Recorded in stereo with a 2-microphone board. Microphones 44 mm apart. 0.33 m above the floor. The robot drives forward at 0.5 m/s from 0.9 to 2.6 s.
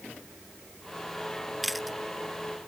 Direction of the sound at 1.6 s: Centre (ahead or behind).